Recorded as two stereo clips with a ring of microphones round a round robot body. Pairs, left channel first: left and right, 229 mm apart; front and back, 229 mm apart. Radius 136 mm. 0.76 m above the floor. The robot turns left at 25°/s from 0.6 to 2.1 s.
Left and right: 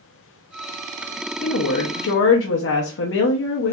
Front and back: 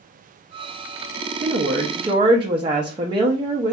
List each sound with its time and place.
1.4 s a woman speaking: 130° left, 0.8 m; by 3.7 s 110° left, 0.8 m